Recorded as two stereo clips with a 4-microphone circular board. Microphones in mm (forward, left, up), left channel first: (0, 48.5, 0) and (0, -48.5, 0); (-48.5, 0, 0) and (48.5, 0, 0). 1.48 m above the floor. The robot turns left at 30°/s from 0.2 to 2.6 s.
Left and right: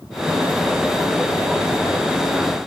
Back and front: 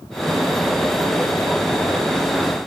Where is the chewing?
I don't hear chewing.